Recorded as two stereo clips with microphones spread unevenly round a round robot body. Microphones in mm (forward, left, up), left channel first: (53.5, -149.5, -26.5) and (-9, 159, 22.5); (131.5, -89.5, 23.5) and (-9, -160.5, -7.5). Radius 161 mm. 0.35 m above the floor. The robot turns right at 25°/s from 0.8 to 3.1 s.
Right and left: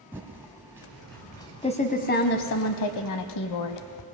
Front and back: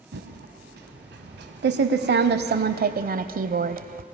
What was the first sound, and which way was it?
Typing on a keyboard, 175° right.